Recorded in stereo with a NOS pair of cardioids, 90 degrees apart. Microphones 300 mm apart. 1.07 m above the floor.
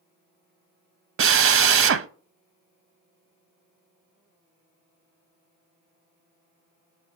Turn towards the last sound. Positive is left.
turn(degrees=-45)